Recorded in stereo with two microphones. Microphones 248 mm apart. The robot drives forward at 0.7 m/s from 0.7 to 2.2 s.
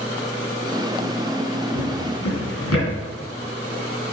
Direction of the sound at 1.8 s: 80° left.